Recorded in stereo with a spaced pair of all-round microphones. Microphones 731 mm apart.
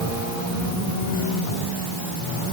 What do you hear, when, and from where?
Only background noise.